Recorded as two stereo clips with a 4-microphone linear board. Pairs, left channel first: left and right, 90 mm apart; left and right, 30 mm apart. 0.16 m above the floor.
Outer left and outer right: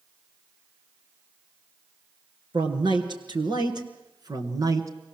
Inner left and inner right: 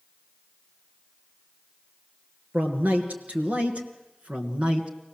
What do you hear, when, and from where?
2.5 s a man speaking: 60° right (ahead or behind), 3 m; by 4.9 s 35° right (ahead or behind), 1.8 m